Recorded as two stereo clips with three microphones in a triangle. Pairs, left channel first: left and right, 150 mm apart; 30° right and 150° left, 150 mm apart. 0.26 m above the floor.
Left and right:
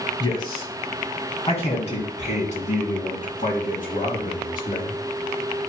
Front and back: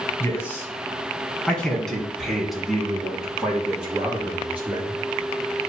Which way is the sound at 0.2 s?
35° left.